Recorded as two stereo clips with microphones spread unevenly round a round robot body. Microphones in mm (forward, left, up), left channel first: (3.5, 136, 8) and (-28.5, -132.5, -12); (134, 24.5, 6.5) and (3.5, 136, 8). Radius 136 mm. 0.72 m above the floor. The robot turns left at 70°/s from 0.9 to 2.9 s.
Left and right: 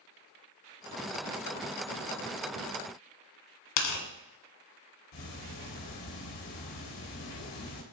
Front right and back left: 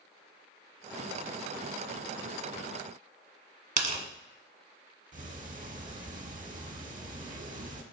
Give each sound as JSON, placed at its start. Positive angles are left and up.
{"t": 3.8, "sound": "tearing paper", "azimuth_deg": 100, "distance_m": 1.7}
{"t": 5.1, "sound": "ticking", "azimuth_deg": 95, "distance_m": 1.3}